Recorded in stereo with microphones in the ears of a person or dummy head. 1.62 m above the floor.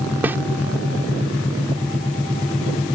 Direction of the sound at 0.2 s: 10° right (ahead or behind).